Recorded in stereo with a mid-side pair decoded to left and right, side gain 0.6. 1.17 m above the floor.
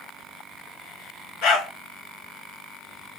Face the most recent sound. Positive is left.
turn(degrees=65)